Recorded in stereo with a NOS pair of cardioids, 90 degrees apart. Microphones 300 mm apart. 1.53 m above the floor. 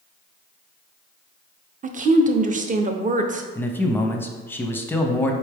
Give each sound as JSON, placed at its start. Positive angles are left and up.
{"t": 1.8, "sound": "a woman speaking", "azimuth_deg": -30, "distance_m": 0.7}
{"t": 3.5, "sound": "a man speaking", "azimuth_deg": 10, "distance_m": 0.7}